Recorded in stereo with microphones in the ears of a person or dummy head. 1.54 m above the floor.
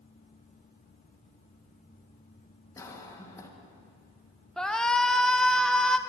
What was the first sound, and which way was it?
A cough, 15° left (ahead or behind).